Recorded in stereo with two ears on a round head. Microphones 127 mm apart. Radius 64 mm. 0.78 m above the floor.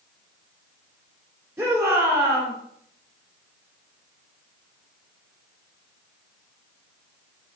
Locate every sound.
1.6 s a shout: 20° right (ahead or behind), 3 m